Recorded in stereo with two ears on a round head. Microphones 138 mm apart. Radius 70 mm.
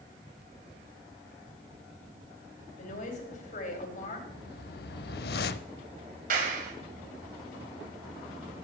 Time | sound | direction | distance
2.8 | a woman speaking | 55° left (ahead or behind) | 3 m
4.3 | a whoosh | 65° left (ahead or behind) | 0.5 m
6.3 | a clap | 60° right (ahead or behind) | 2.5 m